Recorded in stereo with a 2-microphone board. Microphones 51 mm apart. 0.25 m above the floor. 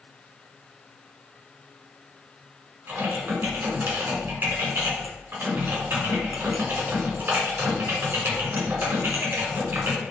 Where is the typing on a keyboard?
45° right (ahead or behind), 1.9 m.